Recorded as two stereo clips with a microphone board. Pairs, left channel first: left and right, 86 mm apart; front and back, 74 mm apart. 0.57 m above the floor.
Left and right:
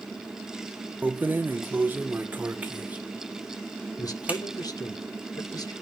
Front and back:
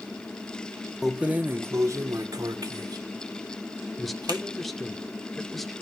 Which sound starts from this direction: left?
A man speaking, at 4.0 s.